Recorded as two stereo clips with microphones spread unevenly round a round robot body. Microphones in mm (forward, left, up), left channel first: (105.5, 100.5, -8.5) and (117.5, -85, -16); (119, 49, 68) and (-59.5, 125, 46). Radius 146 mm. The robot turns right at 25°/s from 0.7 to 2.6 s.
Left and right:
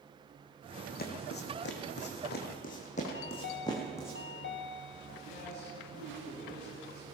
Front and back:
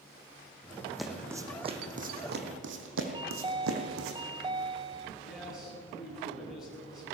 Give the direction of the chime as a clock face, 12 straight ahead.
9 o'clock.